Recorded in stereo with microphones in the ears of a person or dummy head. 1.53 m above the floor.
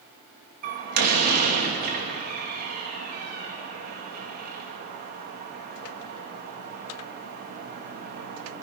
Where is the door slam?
60° right (ahead or behind), 1.7 m.